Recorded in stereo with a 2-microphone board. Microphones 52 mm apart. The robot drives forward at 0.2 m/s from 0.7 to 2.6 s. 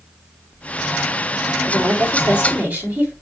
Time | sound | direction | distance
1.6 | a woman speaking | 45° right (ahead or behind) | 2.0 m